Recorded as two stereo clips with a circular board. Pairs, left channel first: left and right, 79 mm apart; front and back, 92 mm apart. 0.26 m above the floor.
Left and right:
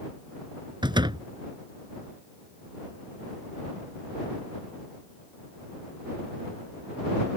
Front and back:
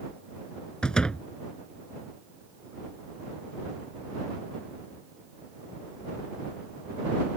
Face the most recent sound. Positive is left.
turn(degrees=-80)